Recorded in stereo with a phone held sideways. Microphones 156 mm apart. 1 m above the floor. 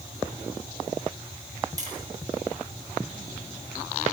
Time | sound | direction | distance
1.8 | tapping | 25° right (ahead or behind) | 8.5 m